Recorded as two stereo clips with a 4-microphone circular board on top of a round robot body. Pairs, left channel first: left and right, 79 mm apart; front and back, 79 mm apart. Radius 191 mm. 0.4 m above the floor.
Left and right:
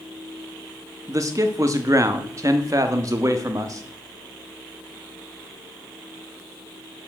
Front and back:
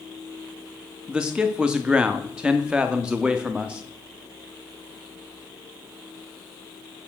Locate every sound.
1.1 s a man speaking: 105° right, 0.9 m